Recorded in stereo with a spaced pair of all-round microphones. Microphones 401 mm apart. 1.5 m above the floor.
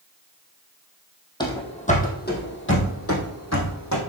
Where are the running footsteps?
10° left (ahead or behind), 2.5 m; by 4.0 s 45° left (ahead or behind), 3.5 m.